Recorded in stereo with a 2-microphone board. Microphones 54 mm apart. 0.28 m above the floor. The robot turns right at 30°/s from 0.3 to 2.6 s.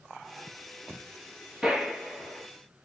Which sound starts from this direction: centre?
A gunshot, at 1.6 s.